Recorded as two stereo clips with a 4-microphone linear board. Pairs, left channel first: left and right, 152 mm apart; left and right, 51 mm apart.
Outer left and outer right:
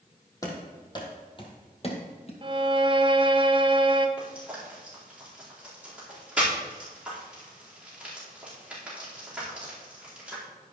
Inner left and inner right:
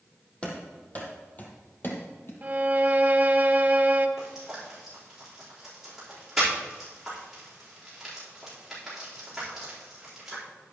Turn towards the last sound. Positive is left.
turn(degrees=-10)  # may be behind; listen again after turning